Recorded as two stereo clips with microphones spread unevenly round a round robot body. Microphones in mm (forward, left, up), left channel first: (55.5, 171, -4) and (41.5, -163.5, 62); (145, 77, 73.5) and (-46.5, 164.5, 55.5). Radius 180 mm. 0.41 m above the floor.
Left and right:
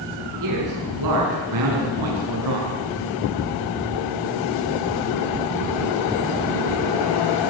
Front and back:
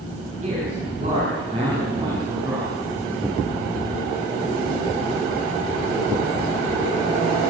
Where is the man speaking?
140° right, 7 m; by 2.7 s 125° right, 5.5 m.